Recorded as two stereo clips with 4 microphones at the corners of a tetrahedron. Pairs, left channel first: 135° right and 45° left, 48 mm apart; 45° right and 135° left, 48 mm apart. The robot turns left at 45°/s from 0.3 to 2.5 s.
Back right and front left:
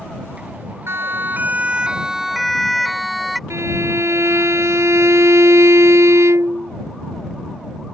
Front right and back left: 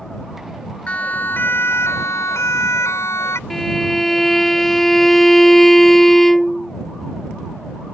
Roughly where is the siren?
Ahead.